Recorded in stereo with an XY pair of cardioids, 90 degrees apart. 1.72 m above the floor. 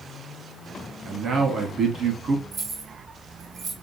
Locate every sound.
1.1 s a man speaking: 55° right, 2.5 m
2.5 s keys jangling: 60° right, 3 m